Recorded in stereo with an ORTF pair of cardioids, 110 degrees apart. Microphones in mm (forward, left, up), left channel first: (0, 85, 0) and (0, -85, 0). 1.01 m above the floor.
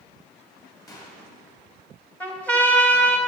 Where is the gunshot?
20° left, 3 m.